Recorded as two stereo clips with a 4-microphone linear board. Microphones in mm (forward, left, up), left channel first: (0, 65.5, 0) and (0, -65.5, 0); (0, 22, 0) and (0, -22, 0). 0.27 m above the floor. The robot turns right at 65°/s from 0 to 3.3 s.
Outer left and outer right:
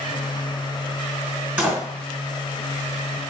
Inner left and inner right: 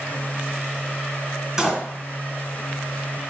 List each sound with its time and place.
1.6 s a door slam: 15° right (ahead or behind), 1.2 m; by 1.8 s centre (ahead or behind), 1.2 m